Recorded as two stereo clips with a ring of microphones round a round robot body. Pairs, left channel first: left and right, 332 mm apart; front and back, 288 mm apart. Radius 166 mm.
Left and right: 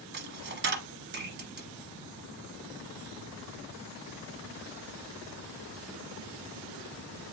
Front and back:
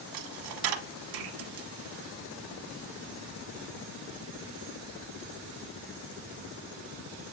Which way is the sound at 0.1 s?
150° right.